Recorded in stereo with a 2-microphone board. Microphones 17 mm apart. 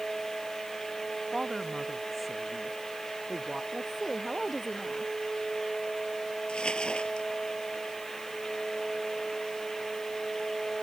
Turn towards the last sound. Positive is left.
turn(degrees=65)  # may be behind; listen again after turning